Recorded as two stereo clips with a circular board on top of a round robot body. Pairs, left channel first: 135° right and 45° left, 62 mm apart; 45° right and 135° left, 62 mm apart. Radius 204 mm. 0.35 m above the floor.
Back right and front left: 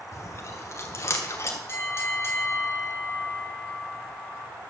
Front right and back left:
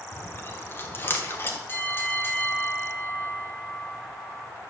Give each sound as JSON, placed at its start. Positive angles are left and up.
{"t": 0.1, "sound": "chewing", "azimuth_deg": -95, "distance_m": 2.0}
{"t": 1.7, "sound": "a bell", "azimuth_deg": -95, "distance_m": 2.5}